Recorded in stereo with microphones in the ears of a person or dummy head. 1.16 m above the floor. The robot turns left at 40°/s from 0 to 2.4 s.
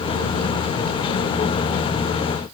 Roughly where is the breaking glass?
I don't hear breaking glass.